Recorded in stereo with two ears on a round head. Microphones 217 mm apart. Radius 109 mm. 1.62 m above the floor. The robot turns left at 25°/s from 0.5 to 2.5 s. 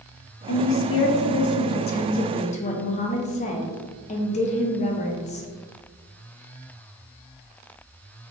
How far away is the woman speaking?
About 0.6 m.